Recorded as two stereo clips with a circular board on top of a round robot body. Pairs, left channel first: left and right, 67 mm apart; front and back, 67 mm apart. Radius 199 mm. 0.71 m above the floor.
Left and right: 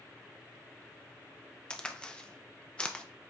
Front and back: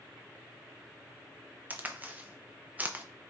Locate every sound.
1.7 s a crack: 150° left, 0.9 m